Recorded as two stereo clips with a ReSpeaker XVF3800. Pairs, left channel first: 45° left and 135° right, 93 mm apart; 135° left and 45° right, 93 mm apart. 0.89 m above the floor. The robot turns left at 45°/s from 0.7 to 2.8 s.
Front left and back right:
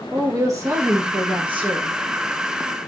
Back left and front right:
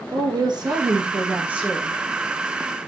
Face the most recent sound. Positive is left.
turn(degrees=180)